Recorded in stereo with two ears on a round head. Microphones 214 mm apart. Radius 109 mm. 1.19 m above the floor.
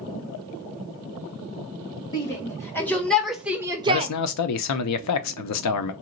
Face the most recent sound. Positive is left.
turn(degrees=75)  # may be behind; listen again after turning